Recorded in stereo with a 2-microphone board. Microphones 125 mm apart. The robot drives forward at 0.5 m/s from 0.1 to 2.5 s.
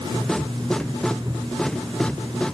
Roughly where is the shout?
I don't hear a shout.